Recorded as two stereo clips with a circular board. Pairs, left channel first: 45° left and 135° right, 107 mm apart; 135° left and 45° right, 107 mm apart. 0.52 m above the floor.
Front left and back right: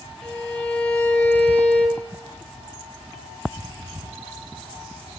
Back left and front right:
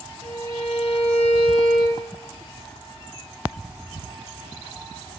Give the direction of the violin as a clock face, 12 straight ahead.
8 o'clock.